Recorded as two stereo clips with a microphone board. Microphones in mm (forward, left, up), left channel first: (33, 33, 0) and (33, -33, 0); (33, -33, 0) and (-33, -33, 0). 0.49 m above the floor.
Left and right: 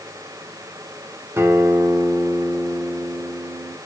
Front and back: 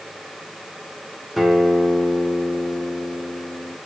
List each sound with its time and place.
1.4 s a guitar: 90° right, 1.4 m